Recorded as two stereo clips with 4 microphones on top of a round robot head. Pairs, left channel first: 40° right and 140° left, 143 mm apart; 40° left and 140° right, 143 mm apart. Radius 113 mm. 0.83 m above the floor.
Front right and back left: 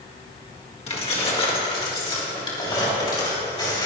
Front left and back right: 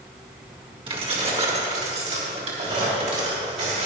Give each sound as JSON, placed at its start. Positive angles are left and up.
{"t": 0.9, "sound": "keys jangling", "azimuth_deg": -85, "distance_m": 2.0}